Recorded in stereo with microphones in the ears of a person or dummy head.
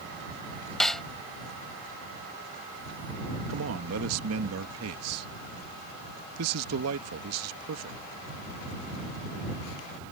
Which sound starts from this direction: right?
A man speaking, at 3.5 s.